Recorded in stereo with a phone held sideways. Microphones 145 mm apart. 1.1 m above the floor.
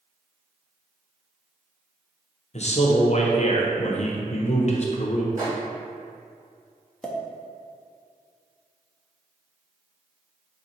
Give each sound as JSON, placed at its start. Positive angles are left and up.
{"t": 2.5, "sound": "a man speaking", "side_deg": 50, "distance_m": 0.7}
{"t": 5.4, "sound": "a microwave", "side_deg": -60, "distance_m": 1.7}
{"t": 7.0, "sound": "a pop", "side_deg": 5, "distance_m": 0.5}